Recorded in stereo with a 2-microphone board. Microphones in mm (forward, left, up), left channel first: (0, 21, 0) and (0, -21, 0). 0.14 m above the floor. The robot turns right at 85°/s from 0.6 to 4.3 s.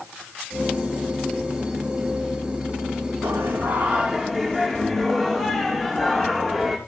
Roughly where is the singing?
Right.